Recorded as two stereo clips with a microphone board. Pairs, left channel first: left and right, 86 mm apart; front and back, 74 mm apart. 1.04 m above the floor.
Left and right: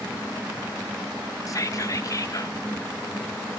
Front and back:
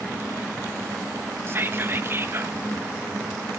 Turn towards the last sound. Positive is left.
turn(degrees=130)